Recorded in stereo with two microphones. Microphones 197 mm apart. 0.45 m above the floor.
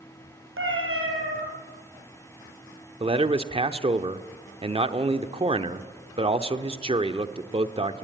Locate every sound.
0.6 s a cat meowing: 75° right (ahead or behind), 4 m
3.0 s a man speaking: 25° right (ahead or behind), 0.9 m